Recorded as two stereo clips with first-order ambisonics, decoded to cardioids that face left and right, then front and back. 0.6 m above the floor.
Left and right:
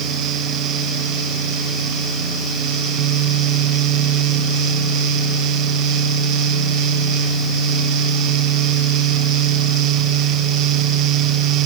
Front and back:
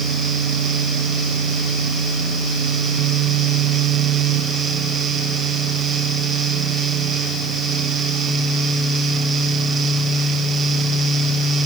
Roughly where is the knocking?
No knocking in this recording.